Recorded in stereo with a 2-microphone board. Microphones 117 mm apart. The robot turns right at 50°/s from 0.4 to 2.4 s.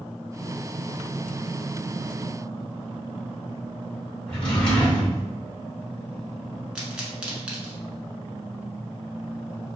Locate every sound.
4.3 s a drawer: 5° left (ahead or behind), 1.7 m
6.8 s a pop: 10° right (ahead or behind), 0.9 m